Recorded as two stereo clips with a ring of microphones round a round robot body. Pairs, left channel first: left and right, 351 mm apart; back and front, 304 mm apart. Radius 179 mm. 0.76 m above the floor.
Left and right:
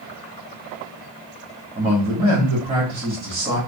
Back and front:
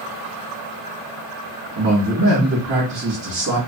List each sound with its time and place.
1.8 s a man speaking: 15° right, 1.2 m